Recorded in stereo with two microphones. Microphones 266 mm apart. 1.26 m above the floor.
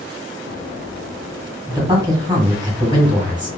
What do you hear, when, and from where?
1.7 s a man speaking: 15° right (ahead or behind), 1.2 m